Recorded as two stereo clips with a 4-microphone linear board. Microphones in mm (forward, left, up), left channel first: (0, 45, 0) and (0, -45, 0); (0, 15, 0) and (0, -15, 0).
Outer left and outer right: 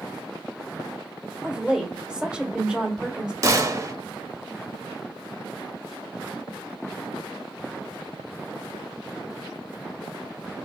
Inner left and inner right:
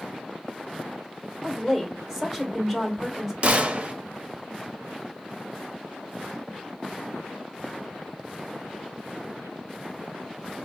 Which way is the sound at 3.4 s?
40° right (ahead or behind).